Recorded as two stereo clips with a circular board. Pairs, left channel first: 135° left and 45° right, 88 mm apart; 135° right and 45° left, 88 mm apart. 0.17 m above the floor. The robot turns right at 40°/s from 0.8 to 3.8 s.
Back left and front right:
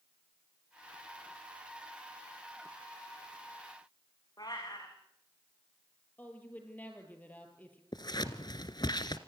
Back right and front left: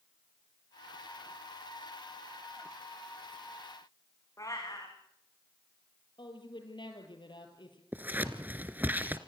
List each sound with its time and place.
4.4 s a cat meowing: 175° left, 6 m
6.2 s a woman speaking: 155° right, 5 m
7.9 s scissors: 110° left, 1.4 m